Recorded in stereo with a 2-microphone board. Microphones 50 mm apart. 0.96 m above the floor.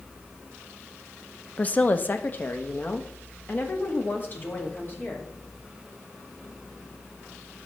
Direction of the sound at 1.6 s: 30° left (ahead or behind).